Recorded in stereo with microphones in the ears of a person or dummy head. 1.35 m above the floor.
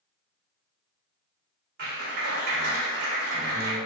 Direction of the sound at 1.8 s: 60° right (ahead or behind).